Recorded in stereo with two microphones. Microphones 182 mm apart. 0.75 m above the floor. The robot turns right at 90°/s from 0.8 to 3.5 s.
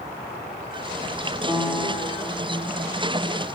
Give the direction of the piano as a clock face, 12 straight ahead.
1 o'clock.